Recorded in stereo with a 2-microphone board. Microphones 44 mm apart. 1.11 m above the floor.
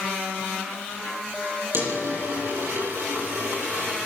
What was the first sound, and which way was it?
A dropped coin, 60° right (ahead or behind).